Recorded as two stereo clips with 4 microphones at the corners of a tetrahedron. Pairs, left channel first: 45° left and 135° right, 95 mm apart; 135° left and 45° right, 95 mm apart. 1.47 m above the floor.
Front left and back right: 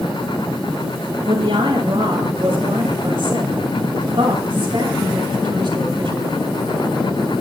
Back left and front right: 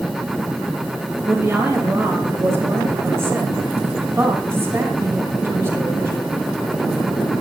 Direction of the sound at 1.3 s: 105° right.